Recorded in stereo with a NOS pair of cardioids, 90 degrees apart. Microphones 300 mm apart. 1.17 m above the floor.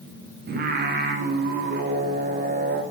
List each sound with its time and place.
0.5 s singing: 35° right, 0.7 m